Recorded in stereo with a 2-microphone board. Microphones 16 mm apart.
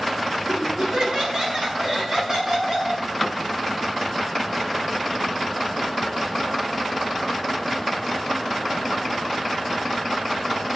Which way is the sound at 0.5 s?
50° right (ahead or behind).